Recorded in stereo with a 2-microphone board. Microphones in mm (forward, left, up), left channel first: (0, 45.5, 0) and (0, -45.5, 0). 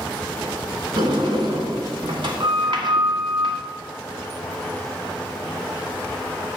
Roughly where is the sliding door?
Right.